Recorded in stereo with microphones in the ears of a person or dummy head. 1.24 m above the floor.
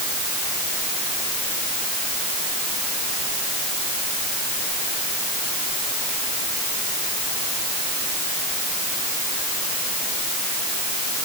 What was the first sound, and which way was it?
Only background noise.